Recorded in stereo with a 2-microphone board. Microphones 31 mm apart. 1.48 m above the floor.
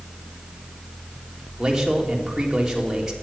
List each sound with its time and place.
1.6 s a man speaking: 10° right (ahead or behind), 3 m